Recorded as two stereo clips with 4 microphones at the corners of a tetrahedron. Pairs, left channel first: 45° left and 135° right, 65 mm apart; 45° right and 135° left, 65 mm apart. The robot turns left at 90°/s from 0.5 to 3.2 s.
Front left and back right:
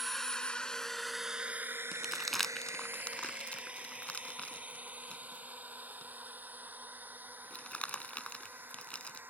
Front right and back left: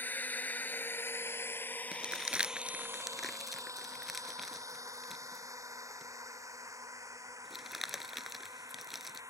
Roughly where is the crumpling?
Behind.